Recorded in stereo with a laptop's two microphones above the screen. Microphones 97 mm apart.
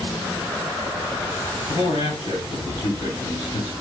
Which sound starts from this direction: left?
A man speaking, at 1.7 s.